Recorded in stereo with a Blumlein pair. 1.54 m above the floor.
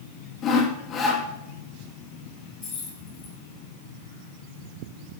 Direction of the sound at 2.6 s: 25° left.